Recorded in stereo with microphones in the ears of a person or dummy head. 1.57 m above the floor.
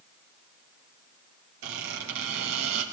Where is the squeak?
70° right (ahead or behind), 3.5 m.